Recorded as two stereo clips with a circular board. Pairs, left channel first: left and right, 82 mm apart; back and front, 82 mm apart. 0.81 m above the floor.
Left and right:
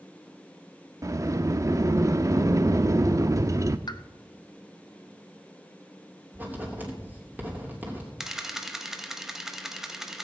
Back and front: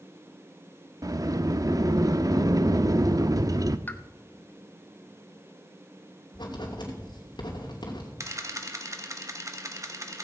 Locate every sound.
1.0 s a sliding door: 40° right, 0.5 m
3.9 s a pop: 115° left, 0.7 m
6.3 s writing: 155° right, 3 m
8.2 s a camera shutter: 5° right, 1.2 m